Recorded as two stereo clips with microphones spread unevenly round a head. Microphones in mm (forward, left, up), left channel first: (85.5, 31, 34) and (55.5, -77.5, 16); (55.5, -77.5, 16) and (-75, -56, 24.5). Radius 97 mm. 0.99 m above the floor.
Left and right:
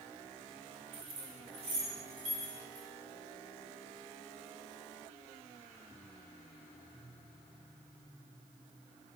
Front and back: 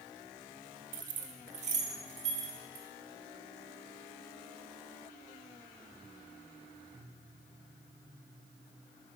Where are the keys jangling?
160° right, 0.7 m; by 2.9 s 150° right, 2 m.